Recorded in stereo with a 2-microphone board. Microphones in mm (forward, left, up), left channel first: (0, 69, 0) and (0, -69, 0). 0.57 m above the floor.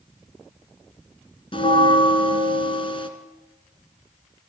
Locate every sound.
1.5 s a bell: 40° left (ahead or behind), 1.9 m